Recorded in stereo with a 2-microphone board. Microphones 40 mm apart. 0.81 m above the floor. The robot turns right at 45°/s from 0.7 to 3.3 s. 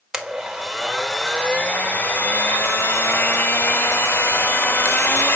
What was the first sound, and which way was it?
A blender, 15° right.